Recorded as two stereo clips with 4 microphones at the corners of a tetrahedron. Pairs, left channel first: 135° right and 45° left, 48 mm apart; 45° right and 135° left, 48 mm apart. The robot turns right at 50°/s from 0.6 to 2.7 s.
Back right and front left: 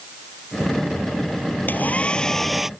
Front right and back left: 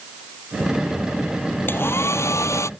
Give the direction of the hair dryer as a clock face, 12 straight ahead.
3 o'clock.